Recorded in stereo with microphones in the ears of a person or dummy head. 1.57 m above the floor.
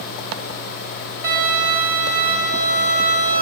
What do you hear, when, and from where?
1.2 s a violin: 45° right (ahead or behind), 1.2 m